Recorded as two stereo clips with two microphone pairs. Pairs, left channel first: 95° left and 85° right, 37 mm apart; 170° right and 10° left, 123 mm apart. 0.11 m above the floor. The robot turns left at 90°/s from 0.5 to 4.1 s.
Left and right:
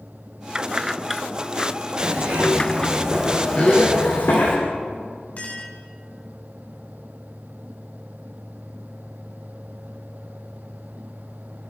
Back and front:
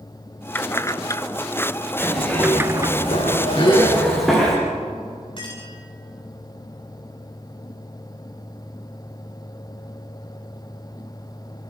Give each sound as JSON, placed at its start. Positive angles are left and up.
{"t": 0.6, "sound": "keys jangling", "azimuth_deg": -120, "distance_m": 1.0}
{"t": 2.0, "sound": "a zipper", "azimuth_deg": -70, "distance_m": 8.5}
{"t": 3.6, "sound": "a gasp", "azimuth_deg": 150, "distance_m": 7.0}
{"t": 5.4, "sound": "a clink", "azimuth_deg": 140, "distance_m": 8.5}